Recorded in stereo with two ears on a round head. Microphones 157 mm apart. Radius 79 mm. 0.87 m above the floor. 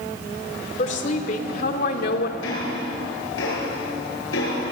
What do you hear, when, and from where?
0.8 s a woman speaking: 45° left (ahead or behind), 2.5 m; by 2.3 s 65° left (ahead or behind), 2 m
2.4 s ticking: 90° left, 7.5 m